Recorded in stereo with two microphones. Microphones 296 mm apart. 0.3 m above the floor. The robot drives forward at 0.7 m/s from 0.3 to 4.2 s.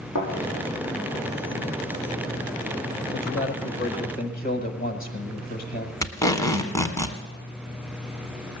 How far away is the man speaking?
About 1.0 m.